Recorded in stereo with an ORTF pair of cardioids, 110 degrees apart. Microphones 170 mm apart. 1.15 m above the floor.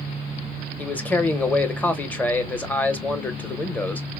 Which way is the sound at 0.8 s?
10° left.